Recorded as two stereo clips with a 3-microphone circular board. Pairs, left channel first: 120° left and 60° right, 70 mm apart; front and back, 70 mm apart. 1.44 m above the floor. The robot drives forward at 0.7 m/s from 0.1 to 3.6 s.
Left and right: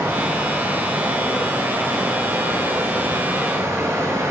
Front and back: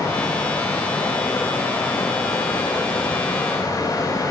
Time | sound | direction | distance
0.0 | running water | 10° right | 8 m